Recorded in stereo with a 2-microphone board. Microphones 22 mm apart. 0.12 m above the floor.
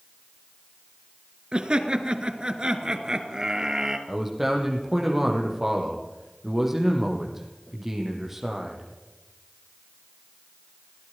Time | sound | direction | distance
1.5 | laughter | 45° right (ahead or behind) | 2 m
4.1 | a man speaking | 10° right (ahead or behind) | 4.5 m